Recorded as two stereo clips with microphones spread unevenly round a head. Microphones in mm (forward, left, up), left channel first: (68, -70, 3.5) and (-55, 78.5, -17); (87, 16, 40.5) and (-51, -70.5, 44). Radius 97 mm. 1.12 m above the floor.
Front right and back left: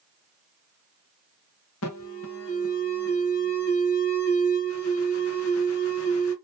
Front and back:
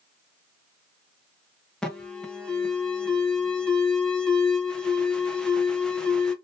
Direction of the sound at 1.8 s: 50° right.